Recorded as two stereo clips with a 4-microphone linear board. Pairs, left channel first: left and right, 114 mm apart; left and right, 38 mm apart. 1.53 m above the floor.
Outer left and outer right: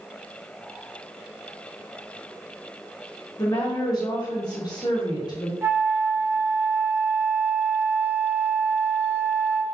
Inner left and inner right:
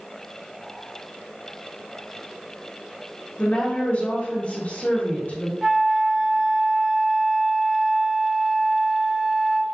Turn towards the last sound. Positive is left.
turn(degrees=-25)  # may be behind; listen again after turning